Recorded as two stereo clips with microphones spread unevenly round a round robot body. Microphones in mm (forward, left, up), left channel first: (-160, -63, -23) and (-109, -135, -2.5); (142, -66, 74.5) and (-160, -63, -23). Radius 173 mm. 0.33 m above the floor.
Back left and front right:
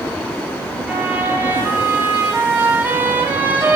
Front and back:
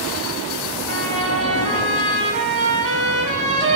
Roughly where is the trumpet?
Behind right.